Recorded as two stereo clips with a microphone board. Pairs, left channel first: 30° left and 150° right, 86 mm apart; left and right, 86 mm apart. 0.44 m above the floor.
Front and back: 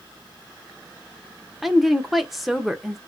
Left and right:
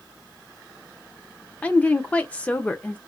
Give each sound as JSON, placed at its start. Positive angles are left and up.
{"t": 1.6, "sound": "a woman speaking", "azimuth_deg": 125, "distance_m": 0.7}